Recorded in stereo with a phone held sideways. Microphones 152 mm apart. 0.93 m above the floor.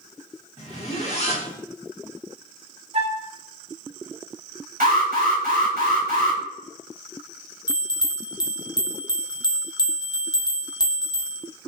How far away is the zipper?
About 1.3 m.